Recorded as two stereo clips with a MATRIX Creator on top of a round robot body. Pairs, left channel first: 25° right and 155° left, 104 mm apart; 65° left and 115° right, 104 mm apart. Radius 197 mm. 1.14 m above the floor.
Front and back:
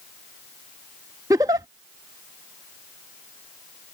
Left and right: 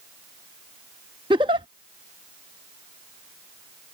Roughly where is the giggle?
Behind right.